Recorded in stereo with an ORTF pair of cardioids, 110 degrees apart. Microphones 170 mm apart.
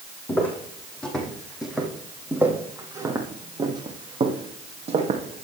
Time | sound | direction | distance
0.3 | footsteps | 10° left | 4 m